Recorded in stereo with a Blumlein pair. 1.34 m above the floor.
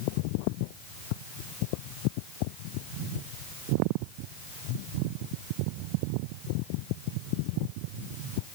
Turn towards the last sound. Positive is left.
No sound to turn to.